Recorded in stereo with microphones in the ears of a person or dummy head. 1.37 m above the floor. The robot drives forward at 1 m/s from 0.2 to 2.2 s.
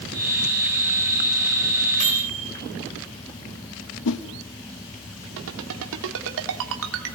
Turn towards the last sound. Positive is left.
turn(degrees=-75)  # may be behind; listen again after turning